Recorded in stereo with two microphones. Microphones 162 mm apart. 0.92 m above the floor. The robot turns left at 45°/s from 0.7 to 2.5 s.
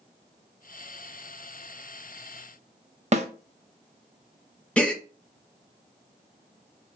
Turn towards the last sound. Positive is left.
turn(degrees=5)  # may be behind; listen again after turning